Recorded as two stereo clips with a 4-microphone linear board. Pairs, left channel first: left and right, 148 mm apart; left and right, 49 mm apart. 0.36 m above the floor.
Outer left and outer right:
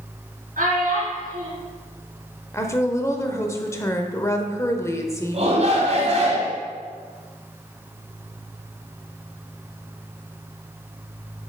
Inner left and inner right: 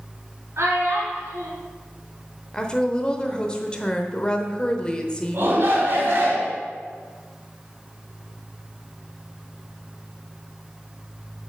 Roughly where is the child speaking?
Right.